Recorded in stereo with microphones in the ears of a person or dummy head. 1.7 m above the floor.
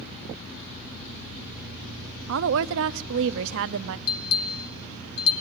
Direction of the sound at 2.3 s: 70° right (ahead or behind).